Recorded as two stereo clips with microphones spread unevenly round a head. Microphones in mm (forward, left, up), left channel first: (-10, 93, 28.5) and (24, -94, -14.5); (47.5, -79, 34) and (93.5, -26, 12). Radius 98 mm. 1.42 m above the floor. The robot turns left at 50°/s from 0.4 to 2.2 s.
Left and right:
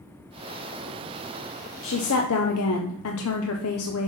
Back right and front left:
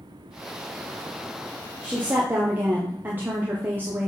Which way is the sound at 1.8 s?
125° left.